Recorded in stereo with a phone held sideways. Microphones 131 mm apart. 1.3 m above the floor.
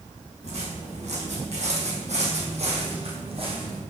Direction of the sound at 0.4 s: 55° right (ahead or behind).